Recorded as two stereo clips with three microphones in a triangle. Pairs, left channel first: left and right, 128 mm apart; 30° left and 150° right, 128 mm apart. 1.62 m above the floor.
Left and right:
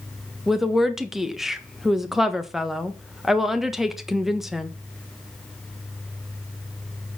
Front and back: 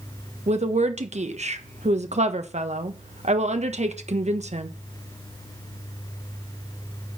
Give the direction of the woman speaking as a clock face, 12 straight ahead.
6 o'clock.